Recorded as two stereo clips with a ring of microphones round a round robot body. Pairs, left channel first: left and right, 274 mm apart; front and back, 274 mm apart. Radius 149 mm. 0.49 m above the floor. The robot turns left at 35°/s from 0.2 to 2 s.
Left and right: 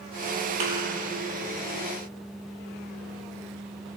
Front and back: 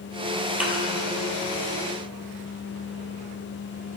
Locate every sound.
0.6 s a thud: 95° right, 3 m; by 0.7 s 100° right, 3 m